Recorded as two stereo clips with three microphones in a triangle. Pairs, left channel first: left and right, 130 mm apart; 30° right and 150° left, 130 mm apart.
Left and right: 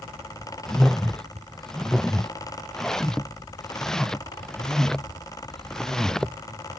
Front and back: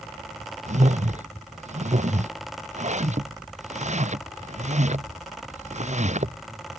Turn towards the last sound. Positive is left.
turn(degrees=175)